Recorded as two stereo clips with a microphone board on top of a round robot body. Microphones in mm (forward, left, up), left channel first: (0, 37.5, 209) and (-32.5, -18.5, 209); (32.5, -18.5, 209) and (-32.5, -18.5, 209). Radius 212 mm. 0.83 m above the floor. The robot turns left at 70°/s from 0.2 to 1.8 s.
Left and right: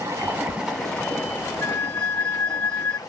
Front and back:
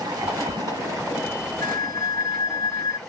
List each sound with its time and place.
0.0 s running water: 165° right, 0.9 m; by 3.1 s 85° left, 0.9 m
1.6 s a flute: 5° left, 0.7 m; by 3.0 s 10° right, 0.7 m